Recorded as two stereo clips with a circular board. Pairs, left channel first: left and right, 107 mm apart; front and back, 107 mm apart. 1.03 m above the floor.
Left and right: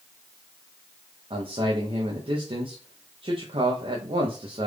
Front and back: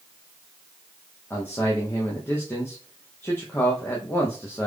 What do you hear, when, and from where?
1.3 s a man speaking: 70° right, 0.8 m